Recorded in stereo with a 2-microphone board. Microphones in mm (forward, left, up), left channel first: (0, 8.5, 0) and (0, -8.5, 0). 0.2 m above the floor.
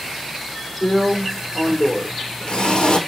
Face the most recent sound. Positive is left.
turn(degrees=60)  # may be behind; listen again after turning